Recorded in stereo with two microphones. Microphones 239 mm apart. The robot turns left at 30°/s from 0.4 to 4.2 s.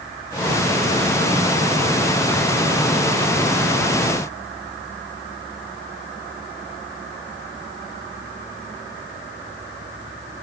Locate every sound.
Only background noise.